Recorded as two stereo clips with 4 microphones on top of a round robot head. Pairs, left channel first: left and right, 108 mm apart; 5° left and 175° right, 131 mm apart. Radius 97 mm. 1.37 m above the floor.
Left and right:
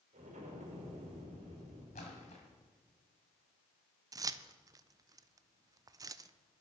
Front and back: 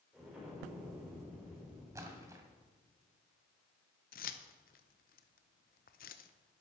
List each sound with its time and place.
0.1 s an explosion: 95° right, 4.5 m
1.9 s a splash: 120° left, 1.9 m
4.1 s keys jangling: 35° right, 0.5 m